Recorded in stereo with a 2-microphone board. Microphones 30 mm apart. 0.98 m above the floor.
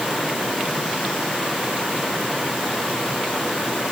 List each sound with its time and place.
Only background noise.